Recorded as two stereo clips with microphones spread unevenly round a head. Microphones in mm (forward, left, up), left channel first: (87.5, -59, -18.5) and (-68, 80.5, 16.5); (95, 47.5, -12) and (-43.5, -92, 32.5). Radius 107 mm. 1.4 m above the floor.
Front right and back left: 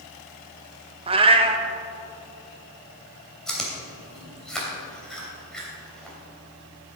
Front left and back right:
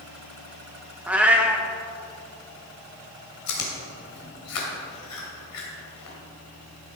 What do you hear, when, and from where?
1.1 s a cat meowing: 165° left, 0.7 m
3.5 s chewing: 50° left, 2.5 m